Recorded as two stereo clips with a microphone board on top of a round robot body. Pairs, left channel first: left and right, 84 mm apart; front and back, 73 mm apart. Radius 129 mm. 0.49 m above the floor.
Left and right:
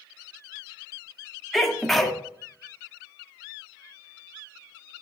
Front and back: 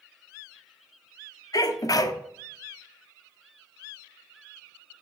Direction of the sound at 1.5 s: 5° left.